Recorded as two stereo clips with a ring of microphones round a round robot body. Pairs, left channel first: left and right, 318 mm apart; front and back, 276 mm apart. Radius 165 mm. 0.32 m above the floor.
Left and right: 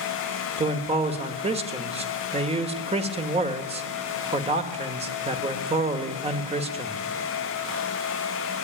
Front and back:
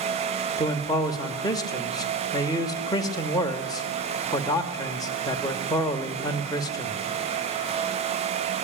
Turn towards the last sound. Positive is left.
turn(degrees=-55)